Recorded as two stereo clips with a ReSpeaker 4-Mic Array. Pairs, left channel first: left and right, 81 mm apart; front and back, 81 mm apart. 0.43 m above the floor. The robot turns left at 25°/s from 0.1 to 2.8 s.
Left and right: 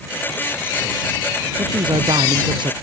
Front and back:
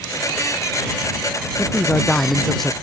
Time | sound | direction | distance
1.6 | a man speaking | 65° right | ?